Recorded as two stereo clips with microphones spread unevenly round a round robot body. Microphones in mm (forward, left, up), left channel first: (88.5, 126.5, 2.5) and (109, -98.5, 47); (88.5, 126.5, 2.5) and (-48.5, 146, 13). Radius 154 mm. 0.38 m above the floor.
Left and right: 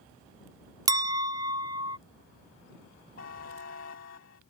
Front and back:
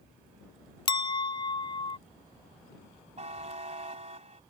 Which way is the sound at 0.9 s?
Straight ahead.